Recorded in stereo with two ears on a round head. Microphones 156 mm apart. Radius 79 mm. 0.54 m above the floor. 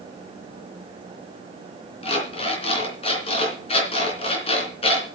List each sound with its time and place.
2.0 s an alarm clock: 35° left (ahead or behind), 3 m